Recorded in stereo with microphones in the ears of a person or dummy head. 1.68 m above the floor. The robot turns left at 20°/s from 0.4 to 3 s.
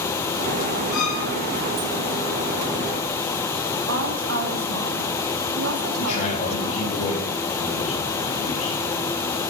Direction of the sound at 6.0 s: 35° left (ahead or behind).